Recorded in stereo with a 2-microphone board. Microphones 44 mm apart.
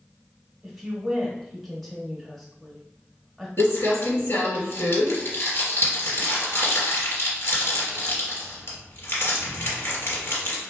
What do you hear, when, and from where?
0.6 s a woman speaking: centre (ahead or behind), 1.0 m
3.6 s crumpling: 65° left (ahead or behind), 1.8 m